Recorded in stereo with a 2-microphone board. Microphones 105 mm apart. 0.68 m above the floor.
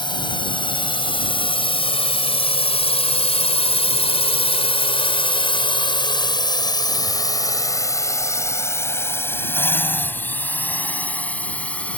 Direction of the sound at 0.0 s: 50° left (ahead or behind).